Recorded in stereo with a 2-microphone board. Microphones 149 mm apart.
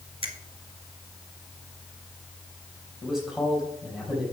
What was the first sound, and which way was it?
A finger snap, 40° right (ahead or behind).